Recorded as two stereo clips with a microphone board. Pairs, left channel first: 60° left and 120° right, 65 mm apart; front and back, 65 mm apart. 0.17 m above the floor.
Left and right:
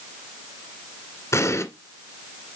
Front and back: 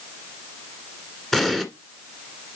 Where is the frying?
No frying in this recording.